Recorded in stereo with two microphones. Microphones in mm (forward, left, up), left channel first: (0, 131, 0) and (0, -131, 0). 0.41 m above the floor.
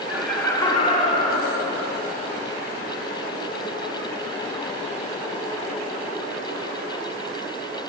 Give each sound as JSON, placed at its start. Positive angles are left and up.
{"t": 0.1, "sound": "laughter", "side_deg": -5, "distance_m": 1.5}